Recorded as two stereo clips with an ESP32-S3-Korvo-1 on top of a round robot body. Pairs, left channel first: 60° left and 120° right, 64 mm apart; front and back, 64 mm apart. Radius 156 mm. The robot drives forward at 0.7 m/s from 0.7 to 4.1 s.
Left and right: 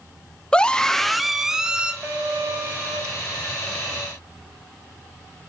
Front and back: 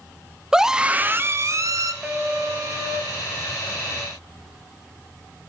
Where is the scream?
115° left, 0.8 m; by 1.9 s 165° left, 1.2 m.